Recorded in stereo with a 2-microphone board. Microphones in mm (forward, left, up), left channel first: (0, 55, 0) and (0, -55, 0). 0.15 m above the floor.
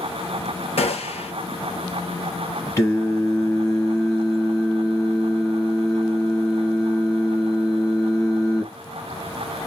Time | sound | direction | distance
0.8 | a gunshot | 70° left (ahead or behind) | 0.8 m
2.8 | singing | 25° left (ahead or behind) | 1.4 m